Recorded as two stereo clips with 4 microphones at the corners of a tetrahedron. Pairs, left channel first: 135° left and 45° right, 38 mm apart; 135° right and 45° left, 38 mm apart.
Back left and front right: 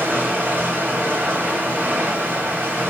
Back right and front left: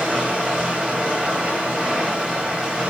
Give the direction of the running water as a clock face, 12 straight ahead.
12 o'clock.